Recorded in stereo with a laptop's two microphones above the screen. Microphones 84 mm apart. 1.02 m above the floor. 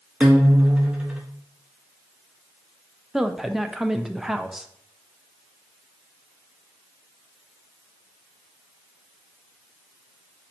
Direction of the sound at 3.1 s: 5° right (ahead or behind).